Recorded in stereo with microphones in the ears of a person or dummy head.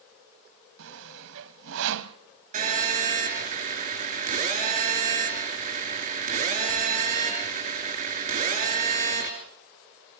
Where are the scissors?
I don't hear scissors.